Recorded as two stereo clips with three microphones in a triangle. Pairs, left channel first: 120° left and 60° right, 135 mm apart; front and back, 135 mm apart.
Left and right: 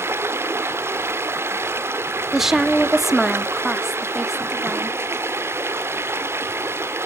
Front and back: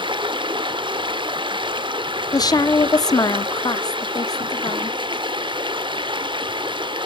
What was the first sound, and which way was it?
Running water, 130° right.